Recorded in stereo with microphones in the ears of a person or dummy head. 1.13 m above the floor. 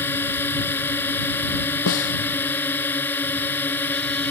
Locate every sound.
0.0 s a drone: 10° left (ahead or behind); by 4.3 s 5° left (ahead or behind)
1.9 s a snare drum: 65° left (ahead or behind)